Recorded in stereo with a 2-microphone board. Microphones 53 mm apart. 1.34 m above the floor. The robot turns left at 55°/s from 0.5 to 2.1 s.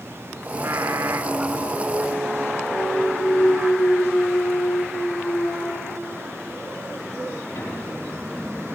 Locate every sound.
0.5 s singing: 65° right, 1.8 m; by 3.7 s 150° right, 1.8 m
2.7 s a clunk: 50° left (ahead or behind), 9.5 m